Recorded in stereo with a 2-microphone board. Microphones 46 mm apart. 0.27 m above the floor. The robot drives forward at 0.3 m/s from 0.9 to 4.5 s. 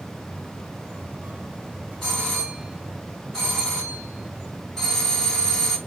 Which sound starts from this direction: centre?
A doorbell, at 2.0 s.